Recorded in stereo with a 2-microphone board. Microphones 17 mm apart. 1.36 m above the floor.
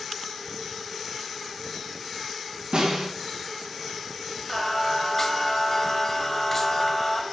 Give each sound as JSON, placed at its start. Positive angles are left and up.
{"t": 2.7, "sound": "a snare drum", "side_deg": -70, "distance_m": 4.0}
{"t": 4.5, "sound": "singing", "side_deg": 15, "distance_m": 1.2}